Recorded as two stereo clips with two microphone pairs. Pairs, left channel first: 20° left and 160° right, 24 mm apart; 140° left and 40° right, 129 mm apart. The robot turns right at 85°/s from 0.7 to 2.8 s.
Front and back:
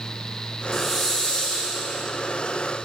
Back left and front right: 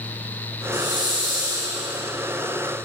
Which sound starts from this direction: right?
A hiss, at 0.7 s.